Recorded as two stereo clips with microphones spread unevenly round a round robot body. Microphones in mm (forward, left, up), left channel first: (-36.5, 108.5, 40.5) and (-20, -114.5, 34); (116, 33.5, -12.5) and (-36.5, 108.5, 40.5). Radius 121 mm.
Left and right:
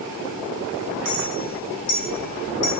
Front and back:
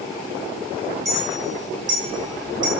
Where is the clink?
80° left, 4 m.